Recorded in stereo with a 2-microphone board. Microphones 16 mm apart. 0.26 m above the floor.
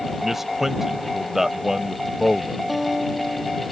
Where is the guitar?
10° right (ahead or behind).